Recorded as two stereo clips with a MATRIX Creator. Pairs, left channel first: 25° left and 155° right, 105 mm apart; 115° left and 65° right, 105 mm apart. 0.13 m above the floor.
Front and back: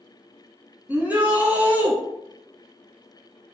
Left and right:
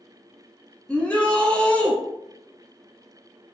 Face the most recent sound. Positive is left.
turn(degrees=170)